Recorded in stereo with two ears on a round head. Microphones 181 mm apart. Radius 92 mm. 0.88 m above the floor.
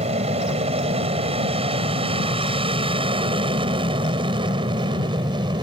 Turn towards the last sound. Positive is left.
turn(degrees=-25)  # may be behind; listen again after turning